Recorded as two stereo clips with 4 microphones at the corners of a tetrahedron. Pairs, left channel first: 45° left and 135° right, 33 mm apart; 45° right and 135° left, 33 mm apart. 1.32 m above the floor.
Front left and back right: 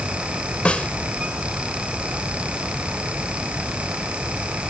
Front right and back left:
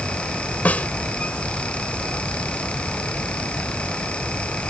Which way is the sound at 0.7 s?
10° right.